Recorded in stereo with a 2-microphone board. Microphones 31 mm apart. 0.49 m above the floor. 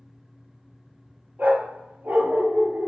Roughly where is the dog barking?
Right.